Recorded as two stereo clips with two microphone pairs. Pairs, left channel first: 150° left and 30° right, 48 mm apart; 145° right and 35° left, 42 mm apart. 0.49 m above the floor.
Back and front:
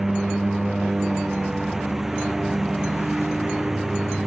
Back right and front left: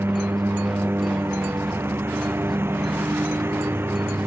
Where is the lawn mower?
50° left.